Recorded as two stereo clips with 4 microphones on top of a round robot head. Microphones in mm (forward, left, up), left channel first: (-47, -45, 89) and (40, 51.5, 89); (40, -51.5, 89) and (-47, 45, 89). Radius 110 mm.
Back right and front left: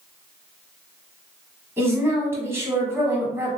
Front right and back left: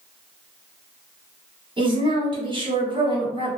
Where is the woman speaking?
110° left, 1.4 m.